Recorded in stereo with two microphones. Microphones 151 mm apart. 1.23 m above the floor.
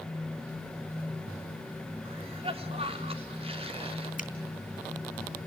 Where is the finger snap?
55° left (ahead or behind), 3 m.